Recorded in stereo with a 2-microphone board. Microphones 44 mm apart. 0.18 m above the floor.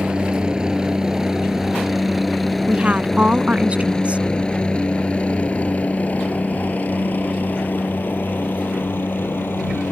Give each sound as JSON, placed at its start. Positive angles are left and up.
{"t": 0.0, "sound": "a helicopter", "side_deg": -20}
{"t": 2.7, "sound": "a woman speaking", "side_deg": -30}